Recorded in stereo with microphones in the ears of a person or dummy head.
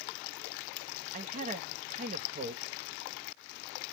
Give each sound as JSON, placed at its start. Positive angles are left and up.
{"t": 1.1, "sound": "a man speaking", "side_deg": -40, "distance_m": 0.8}